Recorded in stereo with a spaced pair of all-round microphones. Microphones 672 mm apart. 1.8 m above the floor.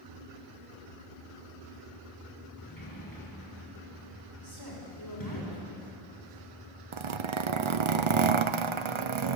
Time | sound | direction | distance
2.6 | a sliding door | 30° left (ahead or behind) | 5 m
4.4 | a woman speaking | 35° left (ahead or behind) | 6 m
6.9 | a zipper | 45° right (ahead or behind) | 0.7 m